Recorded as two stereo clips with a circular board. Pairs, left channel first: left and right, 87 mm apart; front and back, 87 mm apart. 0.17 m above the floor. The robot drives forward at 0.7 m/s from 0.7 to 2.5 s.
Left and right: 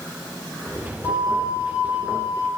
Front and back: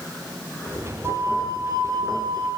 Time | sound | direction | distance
1.0 | a flute | 135° right | 2.5 m